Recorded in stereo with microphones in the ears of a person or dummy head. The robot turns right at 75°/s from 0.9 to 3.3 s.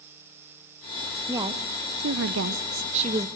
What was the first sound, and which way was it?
A woman speaking, 170° right.